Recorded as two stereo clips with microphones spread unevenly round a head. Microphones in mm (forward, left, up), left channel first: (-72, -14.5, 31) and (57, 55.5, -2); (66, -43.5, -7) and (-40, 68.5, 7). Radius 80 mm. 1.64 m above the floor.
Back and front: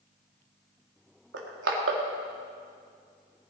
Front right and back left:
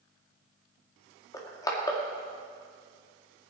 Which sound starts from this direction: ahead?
Crushing, at 1.3 s.